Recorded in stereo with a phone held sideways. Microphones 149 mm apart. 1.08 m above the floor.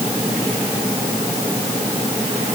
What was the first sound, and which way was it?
Only background noise.